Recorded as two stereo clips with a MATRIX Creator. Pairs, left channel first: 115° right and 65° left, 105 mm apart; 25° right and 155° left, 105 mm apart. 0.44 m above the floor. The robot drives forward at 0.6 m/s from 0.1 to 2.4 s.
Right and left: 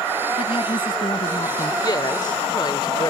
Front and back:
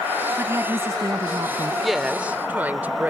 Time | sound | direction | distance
0.4 | a woman speaking | 140° right | ?
1.8 | a woman speaking | 110° right | ?